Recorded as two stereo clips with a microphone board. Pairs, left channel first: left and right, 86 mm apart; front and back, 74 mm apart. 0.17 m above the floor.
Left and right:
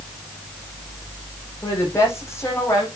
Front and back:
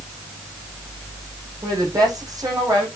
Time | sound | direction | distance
1.6 | a woman speaking | 145° left | 7.5 m